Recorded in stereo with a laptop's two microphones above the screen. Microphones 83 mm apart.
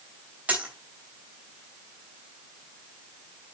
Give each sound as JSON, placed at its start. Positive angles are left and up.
{"t": 0.5, "sound": "a dropped coin", "side_deg": -15, "distance_m": 3.0}